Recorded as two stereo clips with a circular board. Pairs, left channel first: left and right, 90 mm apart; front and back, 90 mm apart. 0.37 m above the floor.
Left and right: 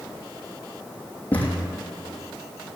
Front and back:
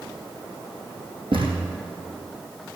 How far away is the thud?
About 3 m.